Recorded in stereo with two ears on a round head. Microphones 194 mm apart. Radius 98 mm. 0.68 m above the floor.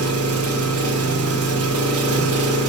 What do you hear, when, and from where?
0.0 s an engine running: 80° right, 2.5 m